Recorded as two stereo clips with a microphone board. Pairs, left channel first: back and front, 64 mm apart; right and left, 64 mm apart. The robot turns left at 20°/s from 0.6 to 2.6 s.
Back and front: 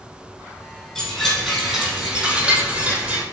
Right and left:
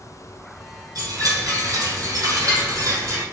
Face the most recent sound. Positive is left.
turn(degrees=70)